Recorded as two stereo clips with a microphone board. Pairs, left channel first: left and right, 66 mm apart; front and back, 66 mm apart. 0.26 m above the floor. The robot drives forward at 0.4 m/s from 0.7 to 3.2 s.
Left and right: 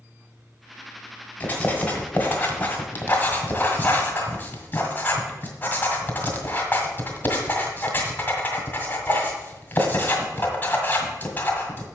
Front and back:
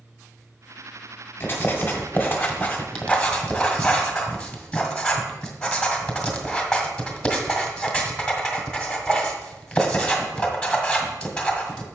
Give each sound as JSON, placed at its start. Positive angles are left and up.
{"t": 1.4, "sound": "writing", "azimuth_deg": 35, "distance_m": 2.0}